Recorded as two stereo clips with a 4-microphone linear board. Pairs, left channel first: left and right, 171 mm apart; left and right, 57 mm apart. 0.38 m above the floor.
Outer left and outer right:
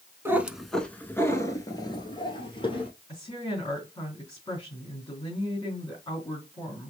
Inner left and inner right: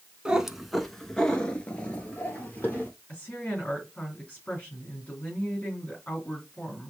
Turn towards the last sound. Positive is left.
turn(degrees=25)  # may be behind; listen again after turning